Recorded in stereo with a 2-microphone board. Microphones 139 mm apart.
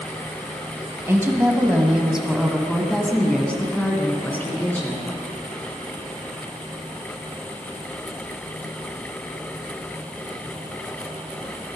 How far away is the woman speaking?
About 1.5 m.